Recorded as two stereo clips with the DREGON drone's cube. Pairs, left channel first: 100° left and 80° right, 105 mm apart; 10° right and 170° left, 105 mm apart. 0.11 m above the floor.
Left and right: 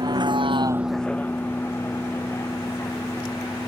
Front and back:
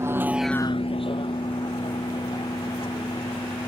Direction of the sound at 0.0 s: 125° right.